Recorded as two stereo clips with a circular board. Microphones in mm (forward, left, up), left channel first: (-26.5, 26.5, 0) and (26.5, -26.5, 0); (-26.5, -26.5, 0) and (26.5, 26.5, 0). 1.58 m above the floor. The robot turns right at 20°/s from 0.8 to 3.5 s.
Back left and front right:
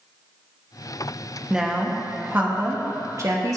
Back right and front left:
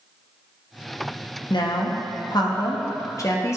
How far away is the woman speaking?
About 1.2 m.